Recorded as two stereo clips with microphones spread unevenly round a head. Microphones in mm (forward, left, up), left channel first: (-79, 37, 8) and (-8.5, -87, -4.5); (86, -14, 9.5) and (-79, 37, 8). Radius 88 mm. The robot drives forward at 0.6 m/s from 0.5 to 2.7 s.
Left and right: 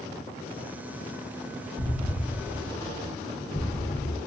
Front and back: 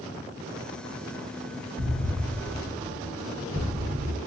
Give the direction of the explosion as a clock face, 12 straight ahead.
6 o'clock.